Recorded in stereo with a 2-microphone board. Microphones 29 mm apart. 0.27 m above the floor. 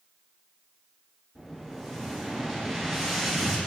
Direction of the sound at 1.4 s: 5° left (ahead or behind).